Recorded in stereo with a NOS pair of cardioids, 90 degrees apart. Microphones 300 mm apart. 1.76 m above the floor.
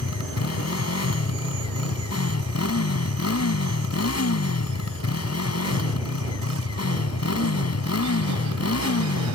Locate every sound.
0.0 s a motorcycle: 60° left